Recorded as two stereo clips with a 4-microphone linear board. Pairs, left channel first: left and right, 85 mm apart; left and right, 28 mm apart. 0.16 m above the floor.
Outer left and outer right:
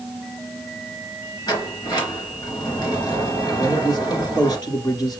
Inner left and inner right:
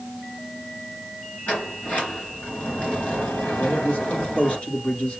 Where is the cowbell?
No cowbell in this recording.